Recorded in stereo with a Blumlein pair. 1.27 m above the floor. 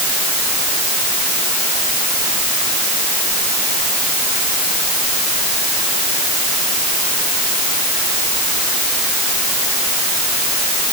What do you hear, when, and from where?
Only background noise.